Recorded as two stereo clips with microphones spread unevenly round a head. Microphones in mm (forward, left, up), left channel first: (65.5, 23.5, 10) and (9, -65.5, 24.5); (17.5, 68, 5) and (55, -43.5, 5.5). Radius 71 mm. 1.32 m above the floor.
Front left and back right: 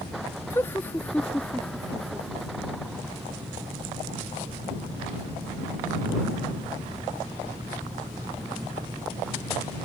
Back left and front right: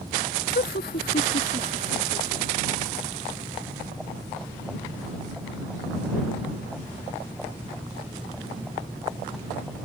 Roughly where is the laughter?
Behind left.